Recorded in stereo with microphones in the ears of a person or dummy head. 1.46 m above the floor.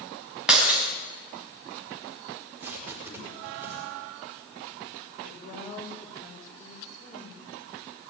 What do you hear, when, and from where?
0.5 s breaking glass: 5° right (ahead or behind), 4.5 m
2.3 s tape being pulled: 10° right (ahead or behind), 5 m
5.2 s a woman speaking: 40° left (ahead or behind), 6.5 m